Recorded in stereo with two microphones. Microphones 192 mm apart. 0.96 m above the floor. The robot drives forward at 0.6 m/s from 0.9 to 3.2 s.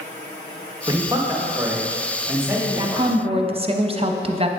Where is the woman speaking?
20° right (ahead or behind), 0.9 m; by 4.5 s 30° right (ahead or behind), 0.7 m.